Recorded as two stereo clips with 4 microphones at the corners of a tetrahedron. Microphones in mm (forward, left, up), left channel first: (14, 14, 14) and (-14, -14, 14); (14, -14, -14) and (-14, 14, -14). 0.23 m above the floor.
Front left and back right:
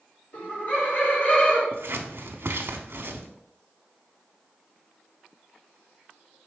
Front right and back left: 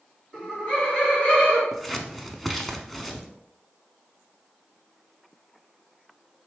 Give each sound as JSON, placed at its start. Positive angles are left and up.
{"t": 0.3, "sound": "laughter", "azimuth_deg": 10, "distance_m": 2.0}
{"t": 1.7, "sound": "scissors", "azimuth_deg": -130, "distance_m": 0.5}